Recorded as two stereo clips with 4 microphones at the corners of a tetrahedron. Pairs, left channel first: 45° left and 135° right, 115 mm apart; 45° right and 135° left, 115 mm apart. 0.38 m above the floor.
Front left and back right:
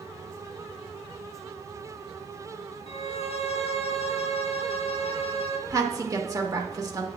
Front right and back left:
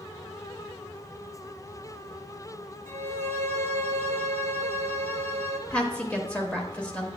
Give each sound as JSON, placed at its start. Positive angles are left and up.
{"t": 2.9, "sound": "a violin", "azimuth_deg": 20, "distance_m": 1.0}
{"t": 5.7, "sound": "a woman speaking", "azimuth_deg": -115, "distance_m": 0.9}